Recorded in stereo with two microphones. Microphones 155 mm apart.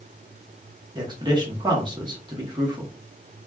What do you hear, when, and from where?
0.9 s a man speaking: 30° right (ahead or behind), 1.0 m